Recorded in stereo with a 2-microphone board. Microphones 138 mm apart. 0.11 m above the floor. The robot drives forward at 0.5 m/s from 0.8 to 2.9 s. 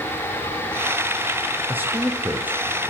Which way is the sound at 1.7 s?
15° right (ahead or behind).